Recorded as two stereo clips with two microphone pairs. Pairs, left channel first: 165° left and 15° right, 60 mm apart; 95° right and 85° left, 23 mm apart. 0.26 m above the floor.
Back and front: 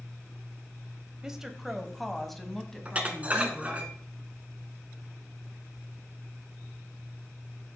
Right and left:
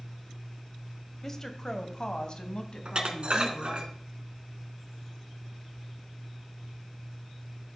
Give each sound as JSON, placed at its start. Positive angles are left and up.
{"t": 1.2, "sound": "a woman speaking", "azimuth_deg": -70, "distance_m": 1.0}
{"t": 2.9, "sound": "dishes clattering", "azimuth_deg": 50, "distance_m": 1.6}